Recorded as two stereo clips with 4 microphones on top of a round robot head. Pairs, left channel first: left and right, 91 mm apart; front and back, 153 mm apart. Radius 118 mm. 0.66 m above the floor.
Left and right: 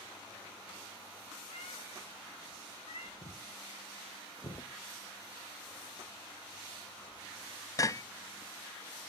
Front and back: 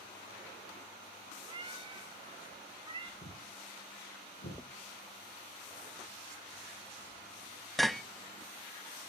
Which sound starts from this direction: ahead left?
Footsteps, at 3.2 s.